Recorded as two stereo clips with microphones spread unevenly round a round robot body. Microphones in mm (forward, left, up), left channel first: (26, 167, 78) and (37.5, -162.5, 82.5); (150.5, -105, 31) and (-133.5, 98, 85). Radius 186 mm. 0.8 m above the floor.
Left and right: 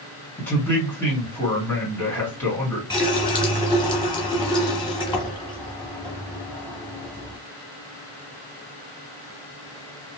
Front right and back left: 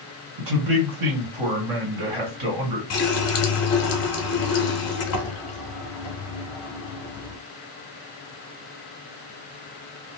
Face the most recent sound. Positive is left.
turn(degrees=15)